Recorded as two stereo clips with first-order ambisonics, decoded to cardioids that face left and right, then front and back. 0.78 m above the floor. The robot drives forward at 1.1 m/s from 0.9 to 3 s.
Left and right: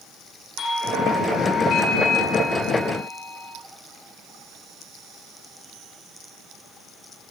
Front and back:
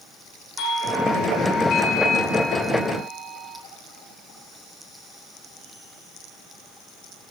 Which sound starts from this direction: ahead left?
A doorbell, at 0.6 s.